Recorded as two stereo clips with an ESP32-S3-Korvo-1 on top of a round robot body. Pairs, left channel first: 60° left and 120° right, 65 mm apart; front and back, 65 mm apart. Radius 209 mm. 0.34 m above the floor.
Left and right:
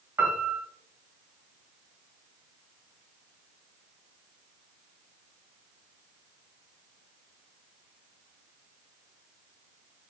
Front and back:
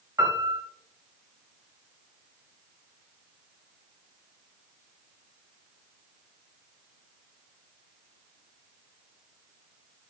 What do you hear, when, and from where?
0.2 s a piano: 170° right, 1.2 m